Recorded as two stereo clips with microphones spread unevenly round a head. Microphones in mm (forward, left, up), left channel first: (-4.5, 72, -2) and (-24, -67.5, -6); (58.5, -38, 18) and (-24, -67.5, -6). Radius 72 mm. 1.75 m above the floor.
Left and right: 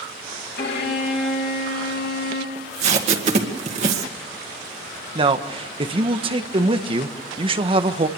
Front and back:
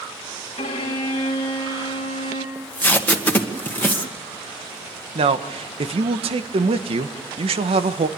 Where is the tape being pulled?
50° right, 2 m.